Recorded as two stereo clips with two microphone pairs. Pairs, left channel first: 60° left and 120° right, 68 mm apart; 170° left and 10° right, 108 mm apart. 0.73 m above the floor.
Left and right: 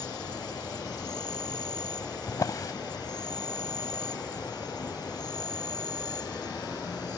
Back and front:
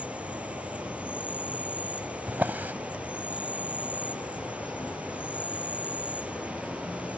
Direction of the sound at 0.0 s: 70° left.